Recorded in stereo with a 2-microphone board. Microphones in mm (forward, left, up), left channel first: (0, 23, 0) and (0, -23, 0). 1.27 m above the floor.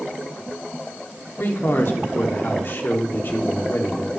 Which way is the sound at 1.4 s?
60° left (ahead or behind).